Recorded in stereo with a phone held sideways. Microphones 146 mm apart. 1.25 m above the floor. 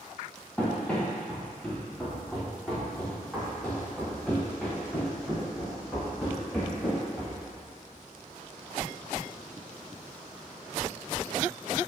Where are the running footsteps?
10° left (ahead or behind), 2.5 m; by 7.4 s 5° left (ahead or behind), 7.5 m.